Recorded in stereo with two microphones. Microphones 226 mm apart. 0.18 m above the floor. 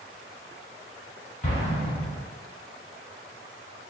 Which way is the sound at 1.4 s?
30° left (ahead or behind).